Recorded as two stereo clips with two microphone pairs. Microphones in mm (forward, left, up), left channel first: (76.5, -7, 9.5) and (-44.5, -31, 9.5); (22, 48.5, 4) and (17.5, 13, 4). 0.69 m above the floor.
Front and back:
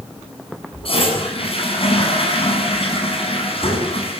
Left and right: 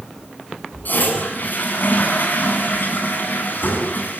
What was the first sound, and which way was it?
A toilet flushing, 50° left.